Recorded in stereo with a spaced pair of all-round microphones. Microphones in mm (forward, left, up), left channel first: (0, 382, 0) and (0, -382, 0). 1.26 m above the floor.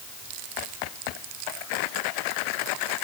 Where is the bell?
No bell in this recording.